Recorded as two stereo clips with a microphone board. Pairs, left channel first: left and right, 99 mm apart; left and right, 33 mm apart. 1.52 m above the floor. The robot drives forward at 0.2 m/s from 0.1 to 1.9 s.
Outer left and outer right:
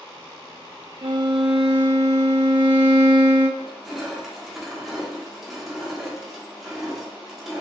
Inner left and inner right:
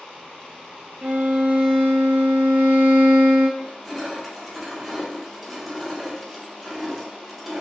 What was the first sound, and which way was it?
A violin, 55° right (ahead or behind).